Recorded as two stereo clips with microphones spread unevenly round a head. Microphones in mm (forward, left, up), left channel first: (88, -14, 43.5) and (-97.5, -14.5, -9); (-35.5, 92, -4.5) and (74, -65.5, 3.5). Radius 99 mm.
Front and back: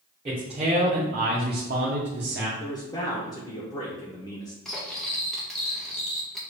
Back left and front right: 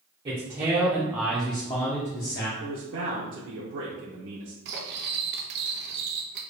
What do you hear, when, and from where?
0.2 s a man speaking: 120° right, 1.2 m; by 2.5 s 160° left, 0.9 m
2.6 s a man speaking: 75° right, 0.8 m
4.7 s cutlery clinking: 75° right, 0.8 m